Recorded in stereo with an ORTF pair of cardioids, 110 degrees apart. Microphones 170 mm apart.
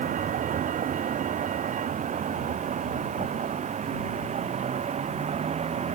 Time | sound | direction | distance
0.0 | a vehicle | 50° right | ?